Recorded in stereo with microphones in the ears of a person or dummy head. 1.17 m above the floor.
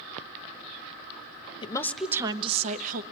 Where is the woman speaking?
30° left (ahead or behind), 0.7 m; by 3.0 s 45° right (ahead or behind), 1.2 m.